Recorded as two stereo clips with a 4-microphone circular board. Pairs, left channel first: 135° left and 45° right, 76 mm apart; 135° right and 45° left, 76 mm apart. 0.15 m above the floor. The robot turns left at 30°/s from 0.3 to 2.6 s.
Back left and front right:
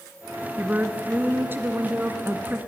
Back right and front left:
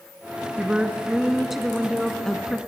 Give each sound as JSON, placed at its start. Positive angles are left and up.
{"t": 0.6, "sound": "a woman speaking", "azimuth_deg": -10, "distance_m": 1.1}